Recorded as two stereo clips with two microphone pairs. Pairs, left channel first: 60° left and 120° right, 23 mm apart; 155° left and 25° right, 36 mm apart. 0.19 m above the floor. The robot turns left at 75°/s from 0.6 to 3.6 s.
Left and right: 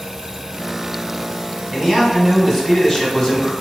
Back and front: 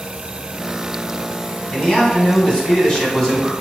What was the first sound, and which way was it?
A man speaking, 150° right.